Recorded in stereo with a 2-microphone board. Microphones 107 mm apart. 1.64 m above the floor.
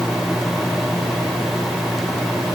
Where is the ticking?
I don't hear ticking.